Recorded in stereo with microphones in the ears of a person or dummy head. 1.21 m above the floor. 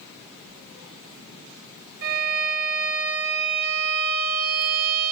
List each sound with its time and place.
2.0 s a violin: 55° right (ahead or behind), 1.7 m